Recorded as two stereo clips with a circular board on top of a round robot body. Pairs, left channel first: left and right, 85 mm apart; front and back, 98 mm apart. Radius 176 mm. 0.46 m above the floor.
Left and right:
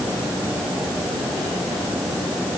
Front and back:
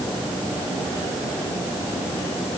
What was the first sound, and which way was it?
Only background noise.